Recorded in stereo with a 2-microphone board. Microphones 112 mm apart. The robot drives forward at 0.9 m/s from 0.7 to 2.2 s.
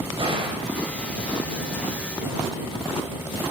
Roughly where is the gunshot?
Right.